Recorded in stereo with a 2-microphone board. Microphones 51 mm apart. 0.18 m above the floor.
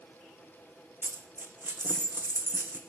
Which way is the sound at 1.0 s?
40° right (ahead or behind).